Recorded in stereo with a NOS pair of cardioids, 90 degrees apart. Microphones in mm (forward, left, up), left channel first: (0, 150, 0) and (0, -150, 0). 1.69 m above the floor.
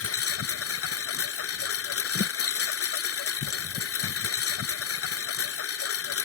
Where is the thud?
35° left.